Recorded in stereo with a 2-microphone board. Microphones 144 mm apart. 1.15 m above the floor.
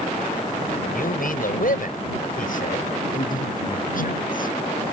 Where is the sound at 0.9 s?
85° left; by 2.9 s 70° left (ahead or behind).